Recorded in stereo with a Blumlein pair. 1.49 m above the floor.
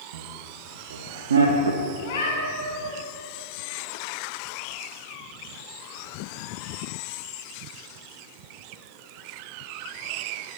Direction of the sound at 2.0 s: 60° left.